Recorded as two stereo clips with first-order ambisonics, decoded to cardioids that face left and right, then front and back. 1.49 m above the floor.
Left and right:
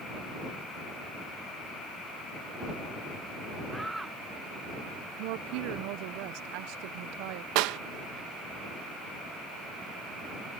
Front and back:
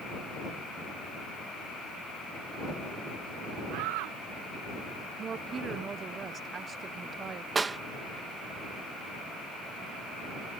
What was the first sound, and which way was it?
A shout, 175° right.